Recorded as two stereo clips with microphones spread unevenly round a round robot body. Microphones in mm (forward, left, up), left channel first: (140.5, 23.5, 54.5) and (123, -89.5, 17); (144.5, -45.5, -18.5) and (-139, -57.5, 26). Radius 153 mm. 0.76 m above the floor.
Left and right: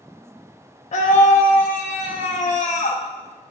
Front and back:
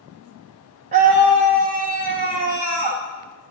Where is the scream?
115° left, 0.5 m.